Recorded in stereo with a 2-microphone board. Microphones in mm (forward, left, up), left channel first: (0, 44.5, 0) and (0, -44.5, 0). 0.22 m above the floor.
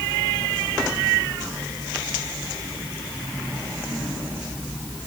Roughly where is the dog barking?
I don't hear a dog barking.